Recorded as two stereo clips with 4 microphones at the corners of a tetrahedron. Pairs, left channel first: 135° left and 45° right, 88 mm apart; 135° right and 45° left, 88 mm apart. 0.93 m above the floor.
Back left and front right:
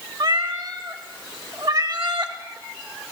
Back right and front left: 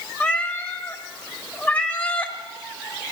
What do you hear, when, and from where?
0.2 s a cat meowing: 70° right, 1.0 m